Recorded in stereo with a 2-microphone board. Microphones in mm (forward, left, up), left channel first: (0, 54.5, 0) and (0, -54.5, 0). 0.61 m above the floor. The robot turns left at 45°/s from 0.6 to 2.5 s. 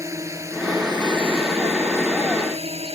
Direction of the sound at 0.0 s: 30° right (ahead or behind).